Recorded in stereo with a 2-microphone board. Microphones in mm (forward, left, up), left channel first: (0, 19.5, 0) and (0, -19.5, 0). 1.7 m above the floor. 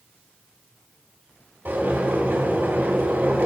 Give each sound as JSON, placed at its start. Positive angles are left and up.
{"t": 1.6, "sound": "boiling", "side_deg": -55, "distance_m": 5.5}